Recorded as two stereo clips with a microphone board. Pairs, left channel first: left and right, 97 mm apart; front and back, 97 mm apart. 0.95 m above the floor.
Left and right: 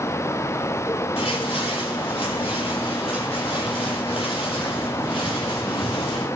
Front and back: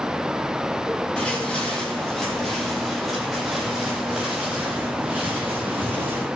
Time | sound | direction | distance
1.2 | footsteps | 80° left | 9.5 m